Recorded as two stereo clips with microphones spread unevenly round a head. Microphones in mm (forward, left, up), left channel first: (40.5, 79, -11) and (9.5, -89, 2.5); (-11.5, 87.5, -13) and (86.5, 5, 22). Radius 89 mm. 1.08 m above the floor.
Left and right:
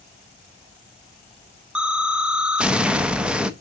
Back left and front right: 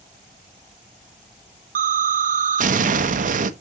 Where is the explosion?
15° right, 0.8 m.